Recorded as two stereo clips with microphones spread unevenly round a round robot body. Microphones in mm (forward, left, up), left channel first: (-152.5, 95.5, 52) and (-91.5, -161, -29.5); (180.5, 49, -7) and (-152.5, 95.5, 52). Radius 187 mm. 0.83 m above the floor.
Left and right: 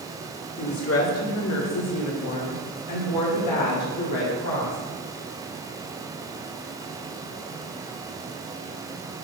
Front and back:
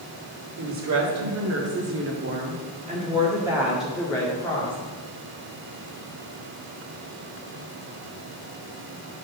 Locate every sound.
0.6 s a woman speaking: 140° left, 2 m; by 4.8 s 65° left, 1.7 m